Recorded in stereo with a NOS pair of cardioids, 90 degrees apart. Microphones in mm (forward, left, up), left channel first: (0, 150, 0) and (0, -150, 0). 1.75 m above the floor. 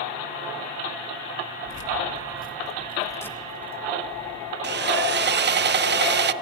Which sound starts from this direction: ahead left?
Keys jangling, at 1.6 s.